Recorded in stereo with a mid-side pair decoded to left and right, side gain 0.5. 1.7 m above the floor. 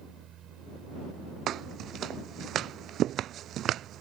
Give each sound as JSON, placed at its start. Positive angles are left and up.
{"t": 0.0, "sound": "a fan", "azimuth_deg": -60}
{"t": 1.5, "sound": "footsteps", "azimuth_deg": -60}